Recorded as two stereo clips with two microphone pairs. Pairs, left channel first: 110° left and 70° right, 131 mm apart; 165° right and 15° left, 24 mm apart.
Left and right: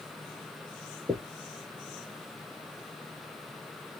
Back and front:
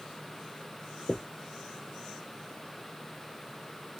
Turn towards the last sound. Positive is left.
turn(degrees=-130)